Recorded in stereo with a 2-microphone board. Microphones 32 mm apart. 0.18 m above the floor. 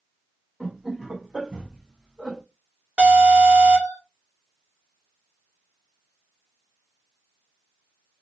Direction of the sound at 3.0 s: 40° right (ahead or behind).